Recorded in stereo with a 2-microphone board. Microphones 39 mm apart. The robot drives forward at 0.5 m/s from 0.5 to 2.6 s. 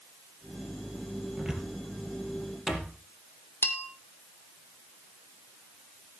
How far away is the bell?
About 1.4 m.